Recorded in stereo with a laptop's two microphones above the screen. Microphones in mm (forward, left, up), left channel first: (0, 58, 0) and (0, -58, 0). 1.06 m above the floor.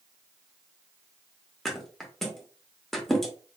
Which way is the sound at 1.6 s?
Centre (ahead or behind).